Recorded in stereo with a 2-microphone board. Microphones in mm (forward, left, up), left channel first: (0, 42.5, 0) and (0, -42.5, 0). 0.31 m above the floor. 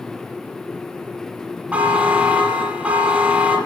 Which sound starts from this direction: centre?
A buzzer, at 1.7 s.